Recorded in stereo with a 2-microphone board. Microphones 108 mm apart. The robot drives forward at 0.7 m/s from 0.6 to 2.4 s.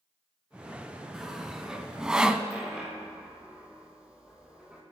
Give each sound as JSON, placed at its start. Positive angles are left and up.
{"t": 1.1, "sound": "sawing", "side_deg": -5, "distance_m": 1.4}
{"t": 2.5, "sound": "a dropped coin", "side_deg": -10, "distance_m": 3.0}